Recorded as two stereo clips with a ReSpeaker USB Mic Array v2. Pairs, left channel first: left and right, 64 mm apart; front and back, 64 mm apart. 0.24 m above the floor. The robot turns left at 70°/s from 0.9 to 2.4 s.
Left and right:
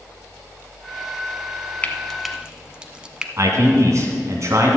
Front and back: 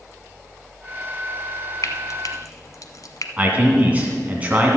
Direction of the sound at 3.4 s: 115° right.